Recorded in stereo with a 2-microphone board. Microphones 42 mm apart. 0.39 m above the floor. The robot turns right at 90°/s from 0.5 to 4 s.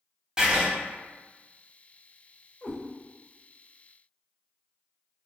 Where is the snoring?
I don't hear snoring.